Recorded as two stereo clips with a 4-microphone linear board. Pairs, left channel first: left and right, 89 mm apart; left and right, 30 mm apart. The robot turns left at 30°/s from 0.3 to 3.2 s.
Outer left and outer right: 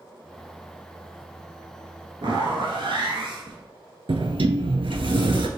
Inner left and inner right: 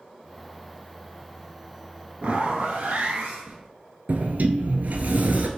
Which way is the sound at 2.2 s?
65° right (ahead or behind).